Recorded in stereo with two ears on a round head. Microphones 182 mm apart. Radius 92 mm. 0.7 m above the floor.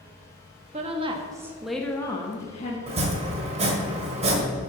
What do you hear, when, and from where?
0.7 s a woman speaking: 35° right (ahead or behind), 1.1 m; by 2.8 s 35° left (ahead or behind), 1.3 m
2.9 s chopping: 30° right (ahead or behind), 1.5 m